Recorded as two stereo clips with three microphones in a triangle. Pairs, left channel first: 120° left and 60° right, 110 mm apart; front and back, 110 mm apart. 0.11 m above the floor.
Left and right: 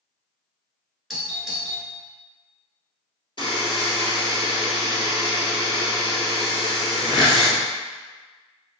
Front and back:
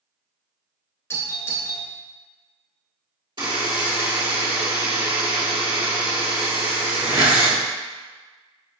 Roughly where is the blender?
I don't hear a blender.